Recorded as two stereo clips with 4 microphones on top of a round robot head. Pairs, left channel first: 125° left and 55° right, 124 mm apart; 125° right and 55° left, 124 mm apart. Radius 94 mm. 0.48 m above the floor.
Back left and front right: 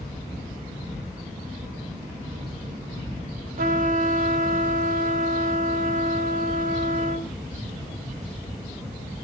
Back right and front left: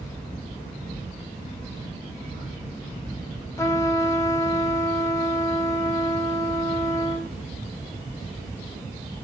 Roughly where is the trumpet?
Ahead right.